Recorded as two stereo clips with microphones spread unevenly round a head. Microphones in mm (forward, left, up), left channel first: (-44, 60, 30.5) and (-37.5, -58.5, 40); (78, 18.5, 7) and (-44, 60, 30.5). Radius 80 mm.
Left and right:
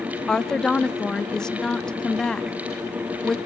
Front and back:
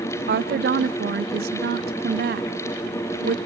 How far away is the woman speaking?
About 0.5 m.